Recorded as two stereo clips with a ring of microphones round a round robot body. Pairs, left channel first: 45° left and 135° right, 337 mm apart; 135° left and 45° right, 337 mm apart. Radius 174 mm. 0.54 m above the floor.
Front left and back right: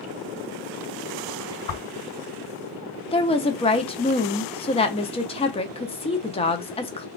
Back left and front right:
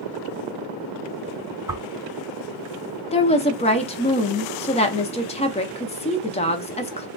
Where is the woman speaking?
90° left, 0.6 m.